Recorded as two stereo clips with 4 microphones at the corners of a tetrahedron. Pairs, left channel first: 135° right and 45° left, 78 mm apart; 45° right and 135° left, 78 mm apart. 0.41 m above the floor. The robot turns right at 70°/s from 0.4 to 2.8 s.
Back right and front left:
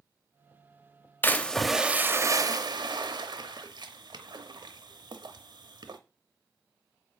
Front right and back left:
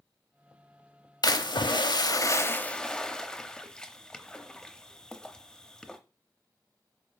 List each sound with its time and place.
1.2 s a splash: 75° right, 0.8 m; by 6.0 s 35° left, 0.8 m